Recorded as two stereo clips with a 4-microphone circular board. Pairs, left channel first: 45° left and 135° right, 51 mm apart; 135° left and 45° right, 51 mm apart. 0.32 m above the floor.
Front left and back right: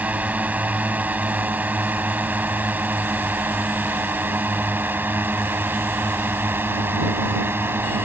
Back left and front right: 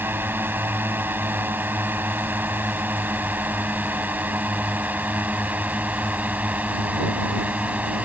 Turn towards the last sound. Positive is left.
turn(degrees=-100)